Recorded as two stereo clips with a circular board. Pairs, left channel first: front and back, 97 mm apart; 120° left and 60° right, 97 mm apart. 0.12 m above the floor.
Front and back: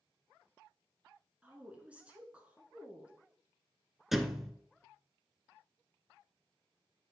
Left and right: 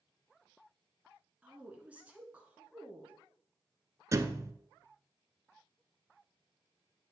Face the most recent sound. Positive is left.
turn(degrees=-95)